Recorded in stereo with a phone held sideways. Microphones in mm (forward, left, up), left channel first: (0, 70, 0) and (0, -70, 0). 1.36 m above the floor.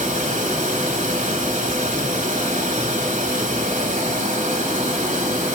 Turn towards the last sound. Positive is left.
turn(degrees=-60)  # may be behind; listen again after turning